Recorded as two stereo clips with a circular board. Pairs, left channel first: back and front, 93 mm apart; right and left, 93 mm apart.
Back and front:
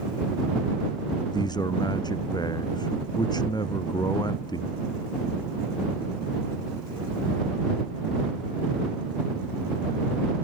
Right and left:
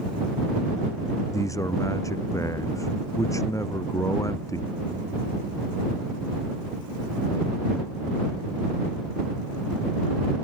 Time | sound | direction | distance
1.3 | a man speaking | 140° right | ?